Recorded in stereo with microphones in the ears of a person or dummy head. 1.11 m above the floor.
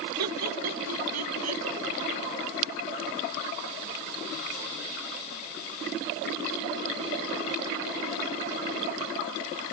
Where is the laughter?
80° right; by 1.6 s 85° right.